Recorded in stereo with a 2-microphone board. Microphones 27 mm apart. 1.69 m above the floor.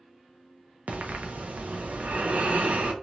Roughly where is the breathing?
Right.